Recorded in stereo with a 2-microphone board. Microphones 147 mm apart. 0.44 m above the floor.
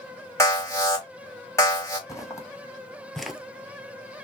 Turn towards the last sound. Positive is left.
turn(degrees=-10)  # may be behind; listen again after turning